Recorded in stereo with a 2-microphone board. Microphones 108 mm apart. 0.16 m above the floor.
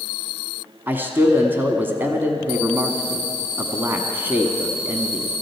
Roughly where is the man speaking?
Centre.